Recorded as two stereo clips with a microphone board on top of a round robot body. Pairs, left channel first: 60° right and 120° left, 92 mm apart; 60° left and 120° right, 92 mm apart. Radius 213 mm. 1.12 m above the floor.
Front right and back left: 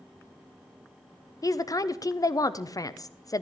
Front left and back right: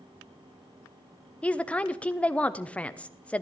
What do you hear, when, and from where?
1.4 s a woman speaking: 15° right, 0.9 m